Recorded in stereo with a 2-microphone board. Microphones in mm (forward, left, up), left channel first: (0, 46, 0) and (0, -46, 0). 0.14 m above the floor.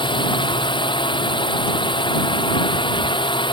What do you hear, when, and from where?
0.0 s a drone: 60° left (ahead or behind)